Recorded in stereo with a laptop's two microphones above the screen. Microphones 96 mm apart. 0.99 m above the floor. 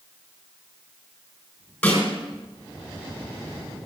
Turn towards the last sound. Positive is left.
turn(degrees=15)  # may be behind; listen again after turning